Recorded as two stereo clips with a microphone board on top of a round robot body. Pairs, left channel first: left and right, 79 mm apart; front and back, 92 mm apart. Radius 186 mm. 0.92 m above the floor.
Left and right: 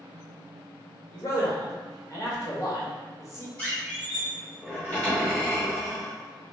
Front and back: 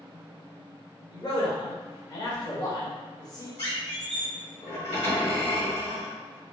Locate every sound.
1.1 s a man speaking: 40° left, 1.4 m
3.6 s a squeak: 10° left, 1.8 m